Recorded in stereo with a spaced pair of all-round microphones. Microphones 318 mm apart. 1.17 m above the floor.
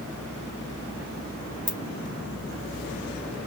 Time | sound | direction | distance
1.7 | a ringtone | 35° right (ahead or behind) | 3 m